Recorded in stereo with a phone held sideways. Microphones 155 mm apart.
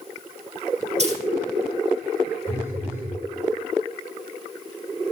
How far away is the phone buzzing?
About 7.5 m.